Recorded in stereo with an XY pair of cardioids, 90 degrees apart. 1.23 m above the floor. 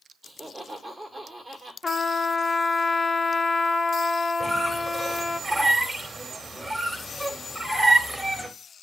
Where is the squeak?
15° right, 2.5 m.